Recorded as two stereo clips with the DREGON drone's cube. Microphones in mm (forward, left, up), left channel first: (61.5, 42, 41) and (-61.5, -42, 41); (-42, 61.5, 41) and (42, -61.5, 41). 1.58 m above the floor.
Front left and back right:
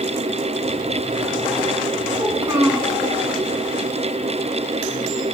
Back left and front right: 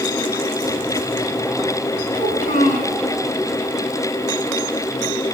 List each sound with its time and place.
2.1 s a child speaking: 140° left, 4.5 m